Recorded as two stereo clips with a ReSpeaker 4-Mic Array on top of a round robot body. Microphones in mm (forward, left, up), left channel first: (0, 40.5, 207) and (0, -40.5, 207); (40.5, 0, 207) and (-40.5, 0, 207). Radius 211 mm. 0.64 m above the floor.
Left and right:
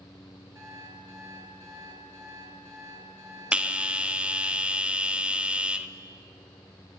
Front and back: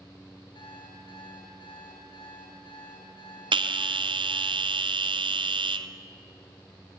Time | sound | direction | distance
0.6 | an alarm clock | 30° right | 6.5 m
3.5 | a bell | 170° right | 1.1 m